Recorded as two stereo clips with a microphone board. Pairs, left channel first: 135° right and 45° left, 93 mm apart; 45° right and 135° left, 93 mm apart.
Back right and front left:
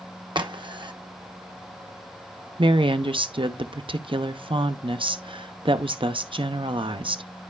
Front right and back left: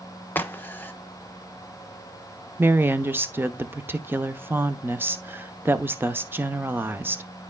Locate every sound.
0.3 s a crack: 20° left, 0.7 m
2.6 s a woman speaking: 65° left, 0.7 m